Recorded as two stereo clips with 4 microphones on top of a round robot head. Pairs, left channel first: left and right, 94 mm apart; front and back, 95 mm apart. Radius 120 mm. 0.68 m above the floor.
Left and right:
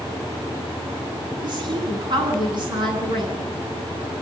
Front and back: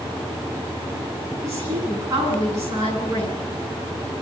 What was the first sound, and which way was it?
A woman speaking, 120° right.